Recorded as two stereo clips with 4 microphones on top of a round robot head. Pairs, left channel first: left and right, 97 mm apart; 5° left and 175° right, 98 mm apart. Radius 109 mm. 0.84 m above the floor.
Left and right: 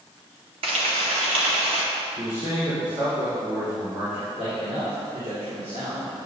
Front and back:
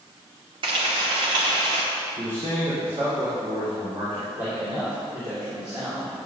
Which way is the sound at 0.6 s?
125° right.